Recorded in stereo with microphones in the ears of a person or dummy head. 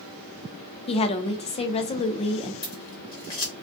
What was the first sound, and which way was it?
A woman speaking, 30° left (ahead or behind).